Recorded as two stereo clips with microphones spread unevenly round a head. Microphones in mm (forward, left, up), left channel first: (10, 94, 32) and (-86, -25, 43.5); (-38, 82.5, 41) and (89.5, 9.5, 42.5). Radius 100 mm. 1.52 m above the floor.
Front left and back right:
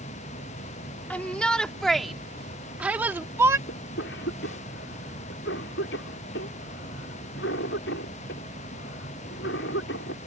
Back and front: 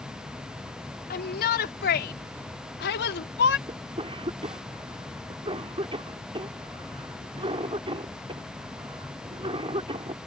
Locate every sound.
1.1 s a shout: 135° left; by 3.6 s 160° left
3.7 s a cough: 25° left